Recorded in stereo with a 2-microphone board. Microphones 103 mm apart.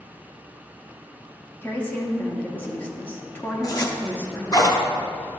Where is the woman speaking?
20° left (ahead or behind), 1.0 m.